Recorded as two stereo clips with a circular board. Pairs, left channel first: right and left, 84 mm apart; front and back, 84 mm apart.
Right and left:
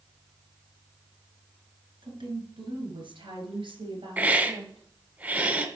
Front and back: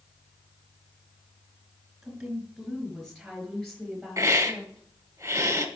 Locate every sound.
2.0 s a woman speaking: 90° left, 3 m; by 4.8 s 85° left, 5 m
4.2 s a hiss: 150° left, 1.3 m